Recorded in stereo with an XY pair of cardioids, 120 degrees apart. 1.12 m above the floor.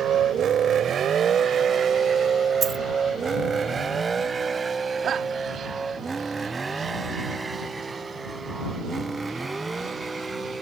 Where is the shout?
50° right.